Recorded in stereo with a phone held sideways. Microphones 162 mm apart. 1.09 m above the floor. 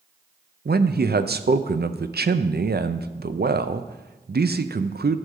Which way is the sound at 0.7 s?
70° right (ahead or behind).